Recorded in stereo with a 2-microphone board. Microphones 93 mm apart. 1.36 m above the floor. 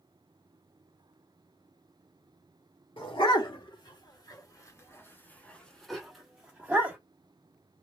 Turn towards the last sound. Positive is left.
turn(degrees=-20)  # may be behind; listen again after turning